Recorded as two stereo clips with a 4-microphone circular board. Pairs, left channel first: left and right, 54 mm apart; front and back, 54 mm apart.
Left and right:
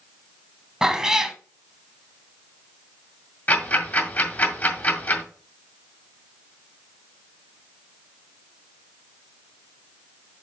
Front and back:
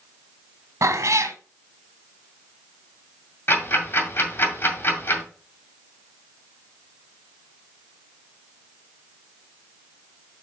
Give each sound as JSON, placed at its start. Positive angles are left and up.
{"t": 0.8, "sound": "a cat meowing", "azimuth_deg": -170, "distance_m": 0.9}
{"t": 3.5, "sound": "ticking", "azimuth_deg": 40, "distance_m": 2.0}